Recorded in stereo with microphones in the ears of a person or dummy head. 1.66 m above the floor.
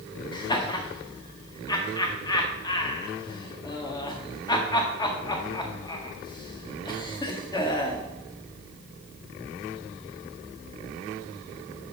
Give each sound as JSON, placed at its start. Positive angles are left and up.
{"t": 0.3, "sound": "laughter", "side_deg": 20, "distance_m": 1.4}